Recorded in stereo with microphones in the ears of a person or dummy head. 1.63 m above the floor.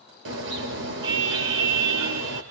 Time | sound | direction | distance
0.2 | a car horn | 70° right (ahead or behind) | 2.5 m